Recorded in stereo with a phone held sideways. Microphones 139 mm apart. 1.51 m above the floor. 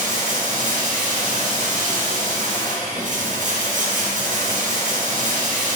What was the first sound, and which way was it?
Running water, 70° right (ahead or behind).